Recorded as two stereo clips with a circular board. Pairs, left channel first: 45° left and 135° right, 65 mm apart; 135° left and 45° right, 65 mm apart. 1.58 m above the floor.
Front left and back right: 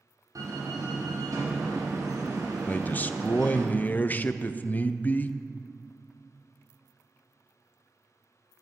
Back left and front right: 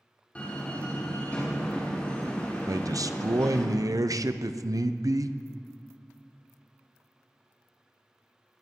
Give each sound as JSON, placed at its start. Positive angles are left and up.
{"t": 0.3, "sound": "a door slam", "azimuth_deg": -155, "distance_m": 4.0}
{"t": 2.7, "sound": "a man speaking", "azimuth_deg": -20, "distance_m": 0.8}